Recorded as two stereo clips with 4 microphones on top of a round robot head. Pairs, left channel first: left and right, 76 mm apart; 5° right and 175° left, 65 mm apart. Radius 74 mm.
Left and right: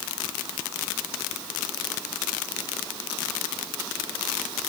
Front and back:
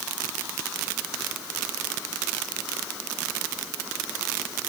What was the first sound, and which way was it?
Only background noise.